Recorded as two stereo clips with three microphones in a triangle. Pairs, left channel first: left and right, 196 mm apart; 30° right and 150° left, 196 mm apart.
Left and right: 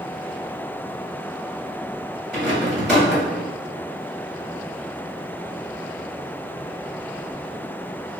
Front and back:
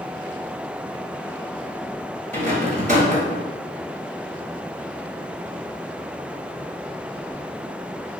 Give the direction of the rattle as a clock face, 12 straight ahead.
6 o'clock.